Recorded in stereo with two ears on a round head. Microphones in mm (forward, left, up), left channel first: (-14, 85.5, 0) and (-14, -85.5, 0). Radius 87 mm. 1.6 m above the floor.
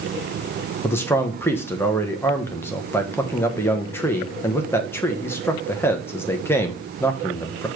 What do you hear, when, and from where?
0.8 s a man speaking: 10° left (ahead or behind), 1.1 m